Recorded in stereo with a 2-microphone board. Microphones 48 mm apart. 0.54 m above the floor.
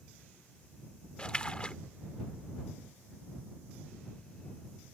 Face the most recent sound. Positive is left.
turn(degrees=20)  # may be behind; listen again after turning